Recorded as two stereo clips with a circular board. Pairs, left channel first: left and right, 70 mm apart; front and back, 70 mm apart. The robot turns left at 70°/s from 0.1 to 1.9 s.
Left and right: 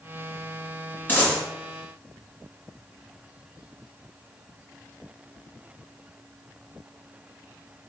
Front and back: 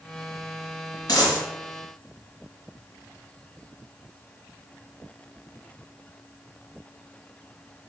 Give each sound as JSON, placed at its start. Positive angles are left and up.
{"t": 1.1, "sound": "a dropped coin", "azimuth_deg": 30, "distance_m": 1.2}